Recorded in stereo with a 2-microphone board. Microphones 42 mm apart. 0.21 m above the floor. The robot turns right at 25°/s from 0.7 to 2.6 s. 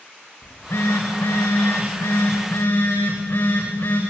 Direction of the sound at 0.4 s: 75° left.